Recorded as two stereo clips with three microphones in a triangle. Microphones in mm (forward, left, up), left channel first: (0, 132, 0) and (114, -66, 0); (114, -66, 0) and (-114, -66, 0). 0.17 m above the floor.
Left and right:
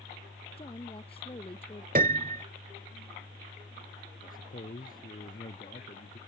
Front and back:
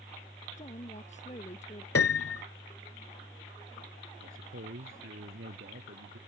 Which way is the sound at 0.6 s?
55° left.